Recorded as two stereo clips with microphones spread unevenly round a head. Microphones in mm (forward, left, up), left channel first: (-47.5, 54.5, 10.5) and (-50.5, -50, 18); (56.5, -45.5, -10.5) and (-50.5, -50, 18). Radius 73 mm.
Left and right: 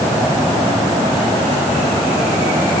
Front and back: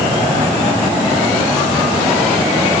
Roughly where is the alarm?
No alarm in this recording.